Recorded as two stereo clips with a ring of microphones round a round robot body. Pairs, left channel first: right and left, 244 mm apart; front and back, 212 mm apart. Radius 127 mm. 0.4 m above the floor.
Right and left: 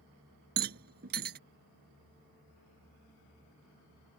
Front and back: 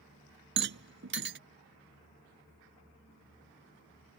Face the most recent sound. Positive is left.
turn(degrees=145)